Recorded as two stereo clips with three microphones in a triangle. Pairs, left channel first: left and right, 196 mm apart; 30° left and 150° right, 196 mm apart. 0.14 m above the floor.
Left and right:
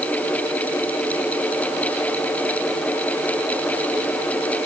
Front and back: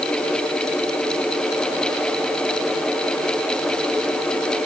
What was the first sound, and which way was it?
Only background noise.